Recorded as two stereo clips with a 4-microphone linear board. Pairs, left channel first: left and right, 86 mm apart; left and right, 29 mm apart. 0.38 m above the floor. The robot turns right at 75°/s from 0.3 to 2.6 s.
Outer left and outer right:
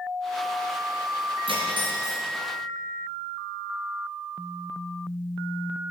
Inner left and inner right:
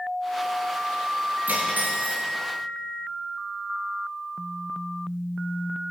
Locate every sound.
1.5 s cutlery clinking: 95° right, 3.5 m; by 2.2 s 35° right, 3.5 m